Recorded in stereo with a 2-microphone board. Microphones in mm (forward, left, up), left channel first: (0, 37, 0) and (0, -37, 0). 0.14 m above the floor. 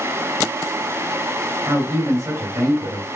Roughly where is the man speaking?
Right.